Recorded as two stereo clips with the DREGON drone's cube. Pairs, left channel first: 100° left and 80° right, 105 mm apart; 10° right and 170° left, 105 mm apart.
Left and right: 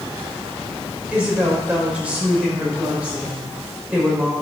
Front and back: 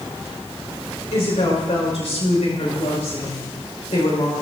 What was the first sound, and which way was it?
A woman speaking, straight ahead.